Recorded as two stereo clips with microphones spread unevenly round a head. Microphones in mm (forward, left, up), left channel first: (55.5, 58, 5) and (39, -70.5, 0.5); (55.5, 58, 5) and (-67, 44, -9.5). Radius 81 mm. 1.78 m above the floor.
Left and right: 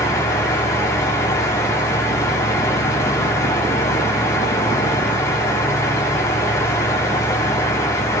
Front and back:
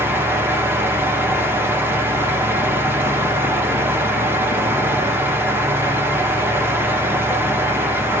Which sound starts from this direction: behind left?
A fan, at 0.0 s.